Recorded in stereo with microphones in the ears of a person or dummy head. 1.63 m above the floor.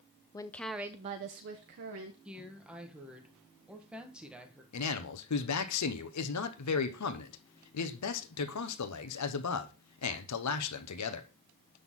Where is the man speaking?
80° left, 1.0 m.